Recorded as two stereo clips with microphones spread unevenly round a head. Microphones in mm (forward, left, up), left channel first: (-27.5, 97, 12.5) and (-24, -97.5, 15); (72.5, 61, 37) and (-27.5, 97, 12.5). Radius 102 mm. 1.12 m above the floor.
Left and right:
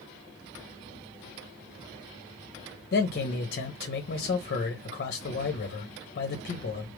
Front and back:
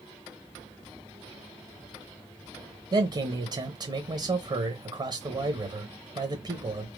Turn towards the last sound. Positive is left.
turn(degrees=125)